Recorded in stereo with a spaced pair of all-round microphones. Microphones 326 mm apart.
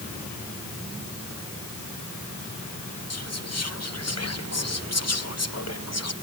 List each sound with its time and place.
3.1 s whispering: 50° left (ahead or behind)